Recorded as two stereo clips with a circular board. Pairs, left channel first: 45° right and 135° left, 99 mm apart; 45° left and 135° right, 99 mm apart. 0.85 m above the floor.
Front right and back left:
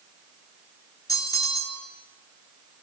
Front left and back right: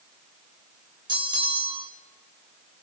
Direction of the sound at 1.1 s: 100° right.